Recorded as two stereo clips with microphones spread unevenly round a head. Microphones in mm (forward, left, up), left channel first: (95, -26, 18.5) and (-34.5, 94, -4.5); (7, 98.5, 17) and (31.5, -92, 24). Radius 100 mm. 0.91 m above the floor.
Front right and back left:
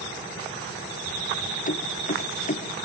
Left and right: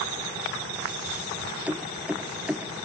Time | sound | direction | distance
1.7 | keys jangling | straight ahead | ?